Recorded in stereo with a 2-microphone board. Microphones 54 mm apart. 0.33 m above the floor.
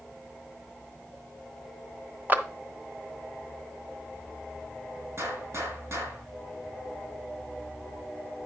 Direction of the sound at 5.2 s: 55° right (ahead or behind).